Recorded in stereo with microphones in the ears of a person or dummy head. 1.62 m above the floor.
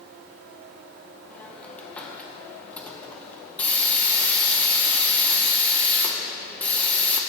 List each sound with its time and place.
1.3 s a hiss: 10° left (ahead or behind), 0.9 m